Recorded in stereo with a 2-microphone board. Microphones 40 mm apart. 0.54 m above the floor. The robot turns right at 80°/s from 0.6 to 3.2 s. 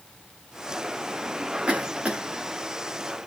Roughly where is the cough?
Right.